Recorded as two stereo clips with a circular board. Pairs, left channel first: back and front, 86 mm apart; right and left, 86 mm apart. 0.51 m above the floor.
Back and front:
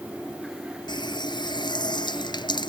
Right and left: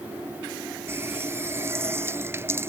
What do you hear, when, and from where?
0.9 s a running tap: 150° left